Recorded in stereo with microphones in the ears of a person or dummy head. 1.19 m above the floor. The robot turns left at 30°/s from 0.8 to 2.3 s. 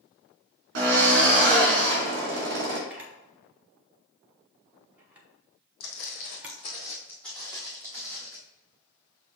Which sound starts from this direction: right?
A drill, at 0.8 s.